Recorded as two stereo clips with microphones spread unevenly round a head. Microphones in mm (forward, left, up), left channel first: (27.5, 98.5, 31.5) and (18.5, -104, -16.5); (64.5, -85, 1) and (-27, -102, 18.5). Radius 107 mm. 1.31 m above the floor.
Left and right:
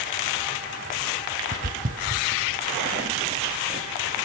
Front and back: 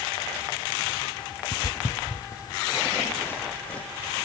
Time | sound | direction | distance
1.5 | footsteps | 40° right | 2 m